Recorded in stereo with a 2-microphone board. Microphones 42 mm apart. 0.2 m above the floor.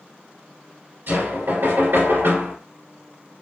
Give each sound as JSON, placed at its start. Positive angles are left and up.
{"t": 1.1, "sound": "knocking", "side_deg": -60, "distance_m": 1.8}